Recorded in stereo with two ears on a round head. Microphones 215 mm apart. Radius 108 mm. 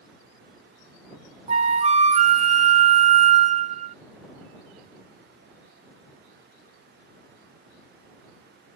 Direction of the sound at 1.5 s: 30° right (ahead or behind).